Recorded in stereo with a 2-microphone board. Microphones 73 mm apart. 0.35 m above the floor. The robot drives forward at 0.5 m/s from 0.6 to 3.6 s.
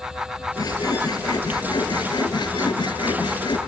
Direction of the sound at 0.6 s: 55° left (ahead or behind).